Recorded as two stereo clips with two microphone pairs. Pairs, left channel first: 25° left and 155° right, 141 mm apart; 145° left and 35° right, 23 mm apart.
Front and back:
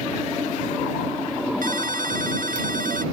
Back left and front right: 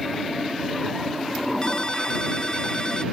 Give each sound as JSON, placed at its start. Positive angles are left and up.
{"t": 1.6, "sound": "a ringtone", "azimuth_deg": -160}